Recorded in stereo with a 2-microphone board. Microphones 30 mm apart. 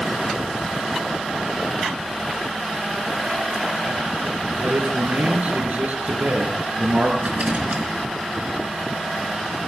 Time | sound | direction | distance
4.6 | a man speaking | 70° right (ahead or behind) | 4 m
7.2 | a rattle | 55° right (ahead or behind) | 4 m